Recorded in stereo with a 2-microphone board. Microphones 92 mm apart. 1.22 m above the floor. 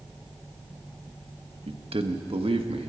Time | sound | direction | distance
1.7 | a man speaking | 85° right | 1.2 m